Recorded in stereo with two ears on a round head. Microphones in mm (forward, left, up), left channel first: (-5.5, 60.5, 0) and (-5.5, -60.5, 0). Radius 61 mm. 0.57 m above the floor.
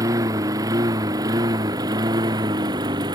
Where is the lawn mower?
25° right (ahead or behind); by 3.1 s 30° right (ahead or behind).